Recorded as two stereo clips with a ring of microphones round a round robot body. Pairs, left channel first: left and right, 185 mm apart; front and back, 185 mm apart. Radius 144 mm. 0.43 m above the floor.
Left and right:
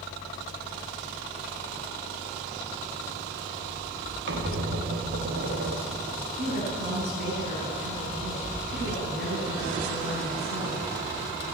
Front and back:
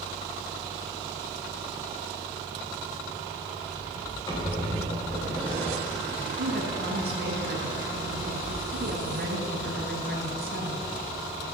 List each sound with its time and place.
4.3 s a squeak: 75° right, 4.5 m
6.4 s a woman speaking: 135° right, 5 m